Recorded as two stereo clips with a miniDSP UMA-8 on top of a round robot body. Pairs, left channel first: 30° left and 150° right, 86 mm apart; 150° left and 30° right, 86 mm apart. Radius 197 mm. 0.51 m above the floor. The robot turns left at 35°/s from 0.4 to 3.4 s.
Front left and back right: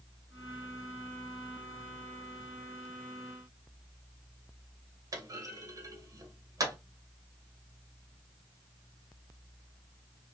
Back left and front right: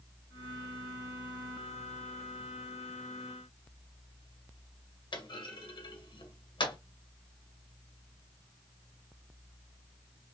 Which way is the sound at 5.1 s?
165° left.